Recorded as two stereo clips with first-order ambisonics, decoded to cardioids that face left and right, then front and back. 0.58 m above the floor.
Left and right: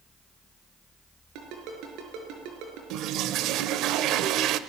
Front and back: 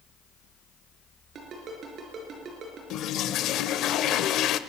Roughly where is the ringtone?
Behind right.